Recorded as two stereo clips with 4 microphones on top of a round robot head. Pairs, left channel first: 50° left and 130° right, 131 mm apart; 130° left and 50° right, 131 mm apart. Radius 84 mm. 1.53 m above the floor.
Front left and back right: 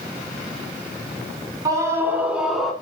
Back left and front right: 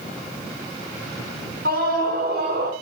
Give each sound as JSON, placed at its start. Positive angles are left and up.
{"t": 1.6, "sound": "a scream", "azimuth_deg": -65, "distance_m": 3.0}